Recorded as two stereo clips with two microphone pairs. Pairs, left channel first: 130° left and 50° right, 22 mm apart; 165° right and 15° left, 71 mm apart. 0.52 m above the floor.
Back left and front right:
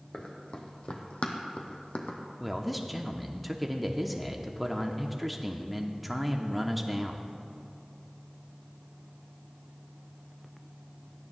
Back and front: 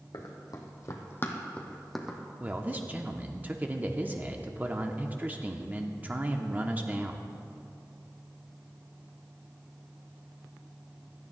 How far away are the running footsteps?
About 2.0 m.